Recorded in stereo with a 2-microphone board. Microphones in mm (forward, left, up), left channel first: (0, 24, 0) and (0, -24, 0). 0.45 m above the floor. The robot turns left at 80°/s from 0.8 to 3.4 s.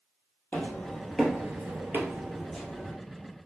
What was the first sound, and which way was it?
Footsteps, 45° left (ahead or behind).